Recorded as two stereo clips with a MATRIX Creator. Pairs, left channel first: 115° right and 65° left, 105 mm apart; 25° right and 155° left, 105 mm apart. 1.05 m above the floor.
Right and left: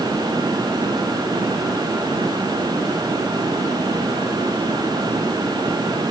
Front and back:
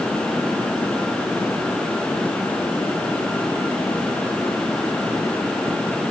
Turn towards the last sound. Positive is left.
No sound to turn to.